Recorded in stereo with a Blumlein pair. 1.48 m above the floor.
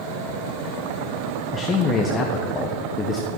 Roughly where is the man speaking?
Ahead.